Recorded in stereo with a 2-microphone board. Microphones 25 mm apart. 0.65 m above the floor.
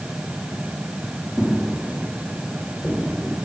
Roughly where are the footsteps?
Centre.